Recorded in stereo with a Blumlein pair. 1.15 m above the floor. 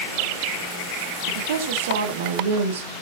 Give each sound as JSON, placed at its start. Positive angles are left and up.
{"t": 1.3, "sound": "a woman speaking", "azimuth_deg": -55, "distance_m": 2.5}